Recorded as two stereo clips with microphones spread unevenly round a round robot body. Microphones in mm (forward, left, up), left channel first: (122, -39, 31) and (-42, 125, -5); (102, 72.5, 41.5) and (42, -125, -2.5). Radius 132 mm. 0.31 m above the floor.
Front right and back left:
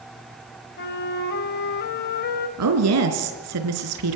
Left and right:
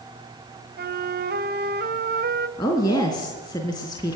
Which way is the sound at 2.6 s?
150° left.